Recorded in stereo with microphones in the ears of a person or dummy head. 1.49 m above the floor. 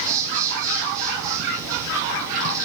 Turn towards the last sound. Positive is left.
turn(degrees=-20)  # may be behind; listen again after turning